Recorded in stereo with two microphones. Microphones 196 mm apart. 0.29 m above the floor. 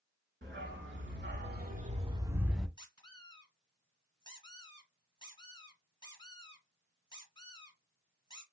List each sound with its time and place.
0.4 s a dog barking: 75° right (ahead or behind), 1.6 m; by 2.7 s centre (ahead or behind), 1.0 m
2.8 s a squeak: 25° left (ahead or behind), 1.9 m